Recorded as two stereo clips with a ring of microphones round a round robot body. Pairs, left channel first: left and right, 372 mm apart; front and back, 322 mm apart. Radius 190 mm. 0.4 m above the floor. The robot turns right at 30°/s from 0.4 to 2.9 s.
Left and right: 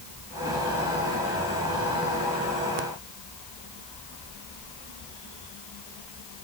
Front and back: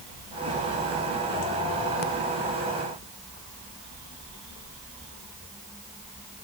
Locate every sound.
Only background noise.